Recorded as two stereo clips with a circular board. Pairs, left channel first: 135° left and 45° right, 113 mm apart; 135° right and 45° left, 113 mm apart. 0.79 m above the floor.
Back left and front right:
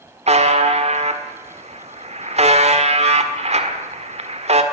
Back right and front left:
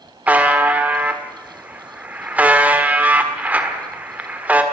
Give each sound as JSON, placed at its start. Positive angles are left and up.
{"t": 0.3, "sound": "a buzzer", "azimuth_deg": -30, "distance_m": 1.8}